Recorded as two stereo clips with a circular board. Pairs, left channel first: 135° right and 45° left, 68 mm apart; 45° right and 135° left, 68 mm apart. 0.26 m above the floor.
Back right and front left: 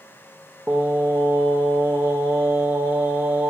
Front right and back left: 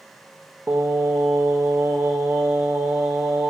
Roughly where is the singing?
Left.